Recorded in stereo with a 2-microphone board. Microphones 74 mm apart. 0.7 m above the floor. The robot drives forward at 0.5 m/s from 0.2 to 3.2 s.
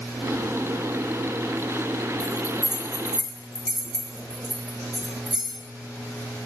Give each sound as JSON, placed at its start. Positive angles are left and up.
{"t": 2.2, "sound": "a bell", "side_deg": -5, "distance_m": 1.3}